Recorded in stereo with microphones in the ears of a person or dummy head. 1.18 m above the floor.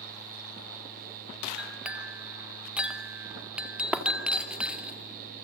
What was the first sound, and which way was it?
A clink, 5° right (ahead or behind).